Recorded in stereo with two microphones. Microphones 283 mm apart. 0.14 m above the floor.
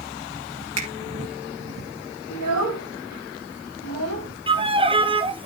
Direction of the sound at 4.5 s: 20° right (ahead or behind).